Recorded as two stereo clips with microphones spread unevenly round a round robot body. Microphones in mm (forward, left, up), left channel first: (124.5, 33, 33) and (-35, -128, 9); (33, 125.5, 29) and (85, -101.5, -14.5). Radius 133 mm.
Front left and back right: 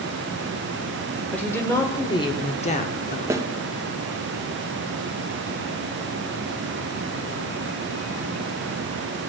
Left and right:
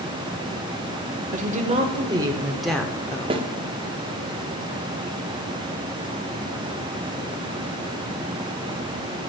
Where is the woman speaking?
40° right, 1.8 m; by 3.5 s 45° left, 1.3 m.